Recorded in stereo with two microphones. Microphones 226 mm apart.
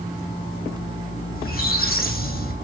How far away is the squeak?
About 4 m.